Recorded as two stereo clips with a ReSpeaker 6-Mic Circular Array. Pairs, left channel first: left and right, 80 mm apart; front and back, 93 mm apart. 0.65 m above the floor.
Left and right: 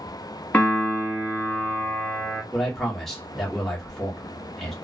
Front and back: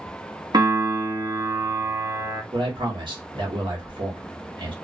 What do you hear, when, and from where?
0.5 s a piano: 155° left, 1.0 m
2.5 s a man speaking: 175° left, 1.2 m